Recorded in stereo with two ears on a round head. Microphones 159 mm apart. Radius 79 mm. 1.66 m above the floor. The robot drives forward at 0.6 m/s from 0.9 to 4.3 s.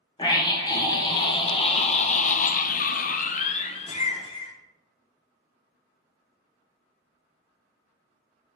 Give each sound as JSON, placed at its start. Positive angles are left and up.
{"t": 0.2, "sound": "a scream", "side_deg": 25, "distance_m": 1.4}